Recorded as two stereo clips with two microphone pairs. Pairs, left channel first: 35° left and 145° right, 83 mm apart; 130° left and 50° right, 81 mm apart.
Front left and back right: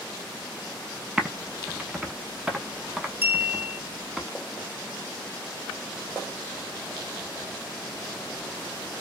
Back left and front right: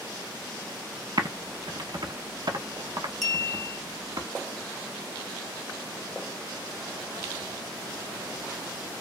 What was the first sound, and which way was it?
Typing on a keyboard, 65° right.